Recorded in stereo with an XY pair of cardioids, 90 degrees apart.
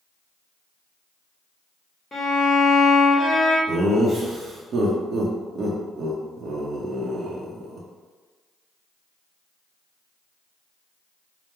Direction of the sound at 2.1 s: 25° left.